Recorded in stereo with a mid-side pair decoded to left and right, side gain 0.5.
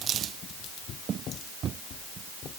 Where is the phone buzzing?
No phone buzzing in this recording.